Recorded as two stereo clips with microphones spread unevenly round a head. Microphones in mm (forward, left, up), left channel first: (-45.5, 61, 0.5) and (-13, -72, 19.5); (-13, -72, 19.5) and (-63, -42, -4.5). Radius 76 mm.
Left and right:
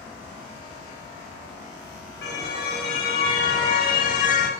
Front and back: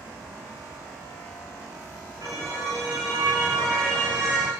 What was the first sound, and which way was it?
A car horn, 75° left.